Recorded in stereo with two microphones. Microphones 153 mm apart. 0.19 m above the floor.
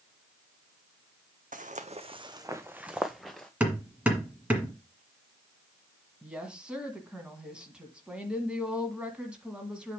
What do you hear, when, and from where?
1.5 s footsteps: 70° right (ahead or behind), 0.7 m; by 3.5 s 5° left (ahead or behind), 1.1 m
3.6 s hammering: 10° right (ahead or behind), 1.8 m
6.2 s a woman speaking: 10° right (ahead or behind), 1.7 m